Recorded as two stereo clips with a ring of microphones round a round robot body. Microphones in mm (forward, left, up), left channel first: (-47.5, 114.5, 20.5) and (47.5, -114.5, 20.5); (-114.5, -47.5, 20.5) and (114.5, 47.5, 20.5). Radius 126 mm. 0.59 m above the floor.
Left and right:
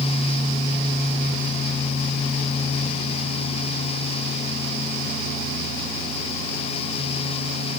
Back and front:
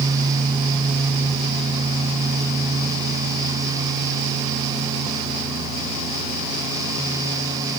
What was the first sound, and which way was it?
Only background noise.